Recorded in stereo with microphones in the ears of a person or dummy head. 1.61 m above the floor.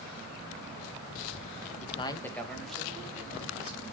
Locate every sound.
1.8 s a man speaking: 45° left (ahead or behind), 0.7 m; by 3.8 s 10° right (ahead or behind), 3.5 m